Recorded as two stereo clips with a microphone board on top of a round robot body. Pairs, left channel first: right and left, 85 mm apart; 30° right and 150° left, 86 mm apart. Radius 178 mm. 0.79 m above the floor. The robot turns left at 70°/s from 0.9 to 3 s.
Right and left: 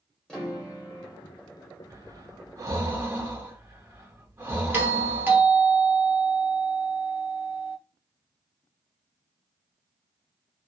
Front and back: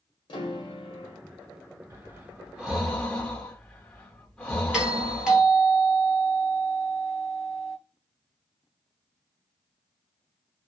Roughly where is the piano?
Ahead.